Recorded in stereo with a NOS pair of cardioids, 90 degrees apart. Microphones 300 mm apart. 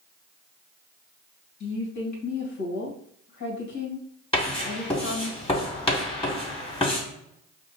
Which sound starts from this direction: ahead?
Writing, at 4.3 s.